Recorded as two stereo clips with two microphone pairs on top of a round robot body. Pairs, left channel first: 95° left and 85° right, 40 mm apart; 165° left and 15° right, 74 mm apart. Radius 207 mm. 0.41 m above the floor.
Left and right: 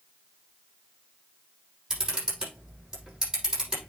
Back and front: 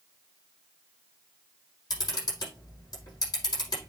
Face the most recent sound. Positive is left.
turn(degrees=-155)